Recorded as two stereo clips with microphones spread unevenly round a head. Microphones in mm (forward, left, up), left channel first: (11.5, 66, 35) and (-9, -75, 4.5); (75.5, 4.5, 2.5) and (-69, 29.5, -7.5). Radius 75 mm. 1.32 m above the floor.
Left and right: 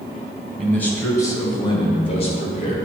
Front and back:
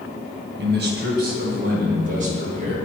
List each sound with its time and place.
0.6 s a man speaking: 170° left, 1.1 m; by 2.8 s 130° left, 1.9 m